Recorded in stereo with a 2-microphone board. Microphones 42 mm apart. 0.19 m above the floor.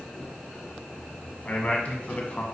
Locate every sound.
1.4 s a man speaking: 35° left (ahead or behind), 1.3 m